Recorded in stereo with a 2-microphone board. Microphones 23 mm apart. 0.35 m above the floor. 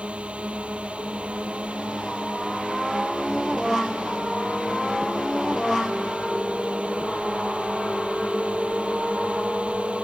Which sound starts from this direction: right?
A drone, at 0.0 s.